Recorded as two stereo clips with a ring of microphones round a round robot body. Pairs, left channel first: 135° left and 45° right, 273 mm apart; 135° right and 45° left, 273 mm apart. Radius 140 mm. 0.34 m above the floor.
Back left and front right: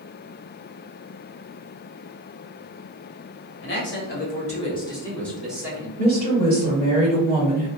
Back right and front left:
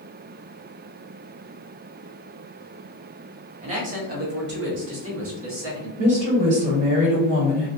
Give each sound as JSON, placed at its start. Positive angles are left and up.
{"t": 3.6, "sound": "a man speaking", "azimuth_deg": 105, "distance_m": 1.4}
{"t": 6.0, "sound": "a woman speaking", "azimuth_deg": 90, "distance_m": 1.6}